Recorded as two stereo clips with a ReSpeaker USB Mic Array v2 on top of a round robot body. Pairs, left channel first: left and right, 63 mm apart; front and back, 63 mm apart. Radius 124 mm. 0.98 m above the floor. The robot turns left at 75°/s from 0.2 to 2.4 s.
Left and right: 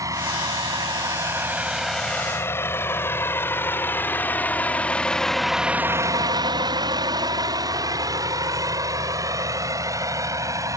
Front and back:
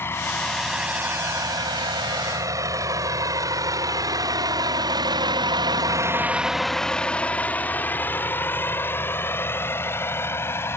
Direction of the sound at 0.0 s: 55° right.